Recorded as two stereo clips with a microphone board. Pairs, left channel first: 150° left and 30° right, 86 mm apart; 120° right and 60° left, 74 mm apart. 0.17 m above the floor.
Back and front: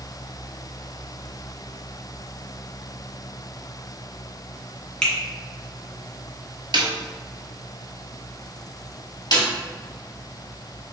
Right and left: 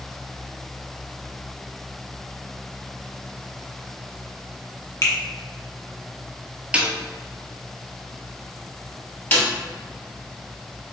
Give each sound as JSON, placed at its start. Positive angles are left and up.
{"t": 5.0, "sound": "a finger snap", "azimuth_deg": -135, "distance_m": 1.4}
{"t": 6.7, "sound": "a snare drum", "azimuth_deg": -15, "distance_m": 0.8}
{"t": 9.3, "sound": "a snare drum", "azimuth_deg": 175, "distance_m": 1.5}